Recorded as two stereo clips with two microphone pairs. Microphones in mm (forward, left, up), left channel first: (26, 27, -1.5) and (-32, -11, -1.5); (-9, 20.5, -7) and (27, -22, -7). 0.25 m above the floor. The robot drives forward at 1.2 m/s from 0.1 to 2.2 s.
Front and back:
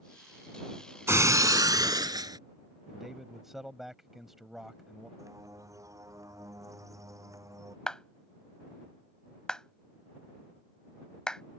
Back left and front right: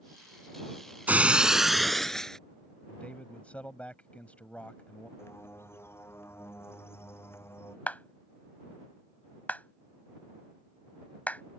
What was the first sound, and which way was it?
Breaking glass, 105° right.